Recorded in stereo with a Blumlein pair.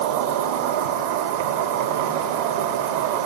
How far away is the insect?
About 5 m.